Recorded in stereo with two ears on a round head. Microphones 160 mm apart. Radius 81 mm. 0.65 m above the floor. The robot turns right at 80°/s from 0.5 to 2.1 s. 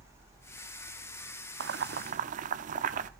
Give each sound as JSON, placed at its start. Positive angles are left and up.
{"t": 1.6, "sound": "boiling", "side_deg": -65, "distance_m": 0.7}